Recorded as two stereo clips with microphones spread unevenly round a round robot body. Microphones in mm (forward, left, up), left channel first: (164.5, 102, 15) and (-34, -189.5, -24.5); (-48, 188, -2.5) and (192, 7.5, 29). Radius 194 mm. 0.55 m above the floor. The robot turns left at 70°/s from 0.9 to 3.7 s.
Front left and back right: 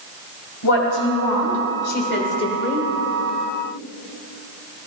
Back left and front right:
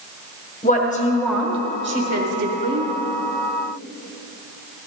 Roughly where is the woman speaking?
Left.